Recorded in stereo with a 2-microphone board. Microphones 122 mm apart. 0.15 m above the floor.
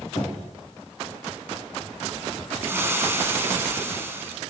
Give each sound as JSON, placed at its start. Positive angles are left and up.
{"t": 0.1, "sound": "knocking", "side_deg": 35, "distance_m": 2.0}
{"t": 2.6, "sound": "frying", "side_deg": -20, "distance_m": 0.9}